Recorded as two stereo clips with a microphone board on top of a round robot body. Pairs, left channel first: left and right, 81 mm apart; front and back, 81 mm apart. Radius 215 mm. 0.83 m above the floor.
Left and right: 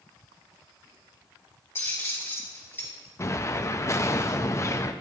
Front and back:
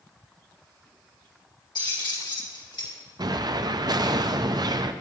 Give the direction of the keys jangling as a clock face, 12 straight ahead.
11 o'clock.